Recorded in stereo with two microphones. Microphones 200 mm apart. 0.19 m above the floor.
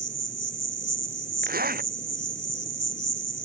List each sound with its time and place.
0.0 s an insect: 45° left (ahead or behind)
1.4 s a zipper: 50° right (ahead or behind)